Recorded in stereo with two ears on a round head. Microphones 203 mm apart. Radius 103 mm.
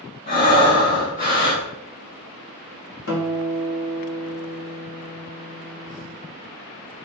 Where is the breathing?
40° left (ahead or behind), 1.7 m.